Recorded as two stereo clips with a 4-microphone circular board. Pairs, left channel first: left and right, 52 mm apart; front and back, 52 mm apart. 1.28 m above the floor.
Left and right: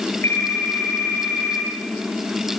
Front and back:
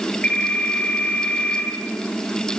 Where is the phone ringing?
60° left, 10 m.